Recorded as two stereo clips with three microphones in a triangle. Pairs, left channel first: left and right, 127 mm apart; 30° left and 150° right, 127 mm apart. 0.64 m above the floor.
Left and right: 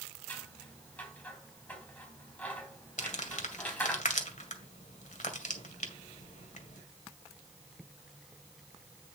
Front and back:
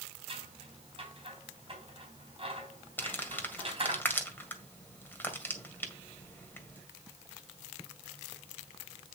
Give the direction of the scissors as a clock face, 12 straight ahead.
6 o'clock.